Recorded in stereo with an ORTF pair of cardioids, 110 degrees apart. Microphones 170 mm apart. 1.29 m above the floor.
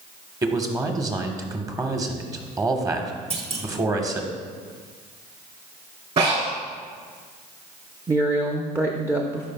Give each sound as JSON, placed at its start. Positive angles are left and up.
{"t": 0.4, "sound": "a man speaking", "azimuth_deg": -20, "distance_m": 1.1}
{"t": 3.3, "sound": "a clunk", "azimuth_deg": -40, "distance_m": 1.1}
{"t": 6.2, "sound": "breathing", "azimuth_deg": -45, "distance_m": 3.0}
{"t": 8.1, "sound": "a woman speaking", "azimuth_deg": -15, "distance_m": 0.7}